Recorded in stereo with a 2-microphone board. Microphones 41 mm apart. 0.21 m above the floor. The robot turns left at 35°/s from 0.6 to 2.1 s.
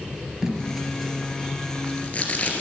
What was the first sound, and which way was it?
Tape being pulled, 15° right (ahead or behind).